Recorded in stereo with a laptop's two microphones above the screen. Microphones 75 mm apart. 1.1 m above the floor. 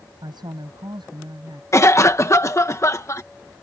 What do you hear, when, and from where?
0.2 s a woman speaking: 75° right (ahead or behind)
1.7 s a cough: 40° left (ahead or behind)